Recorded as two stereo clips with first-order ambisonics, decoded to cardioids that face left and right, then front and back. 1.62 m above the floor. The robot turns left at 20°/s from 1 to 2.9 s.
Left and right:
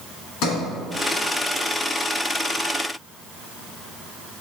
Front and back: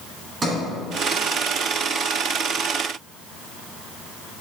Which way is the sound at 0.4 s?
115° left.